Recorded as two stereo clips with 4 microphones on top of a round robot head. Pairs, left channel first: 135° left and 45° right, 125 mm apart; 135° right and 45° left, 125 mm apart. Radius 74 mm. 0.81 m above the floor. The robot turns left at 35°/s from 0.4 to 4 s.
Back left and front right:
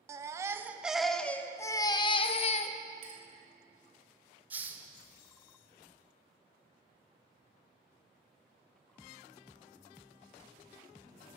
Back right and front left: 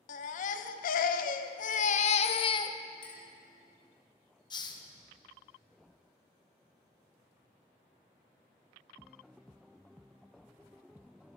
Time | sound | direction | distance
0.1 | a baby crying | 110° right | 0.6 m
3.0 | a clink | 80° right | 2.5 m
4.5 | a hiss | 110° right | 1.0 m